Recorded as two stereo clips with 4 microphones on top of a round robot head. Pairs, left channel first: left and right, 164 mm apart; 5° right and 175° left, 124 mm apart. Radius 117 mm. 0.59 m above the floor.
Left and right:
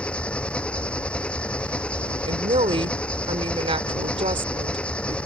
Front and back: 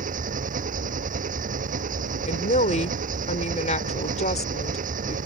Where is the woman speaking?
30° right.